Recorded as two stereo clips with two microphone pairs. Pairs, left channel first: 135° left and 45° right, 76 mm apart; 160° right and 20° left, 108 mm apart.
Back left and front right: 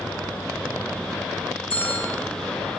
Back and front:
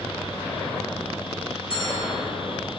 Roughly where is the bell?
Behind.